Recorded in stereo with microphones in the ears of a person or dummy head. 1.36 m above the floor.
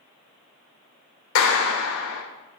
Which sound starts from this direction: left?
A clap, at 1.4 s.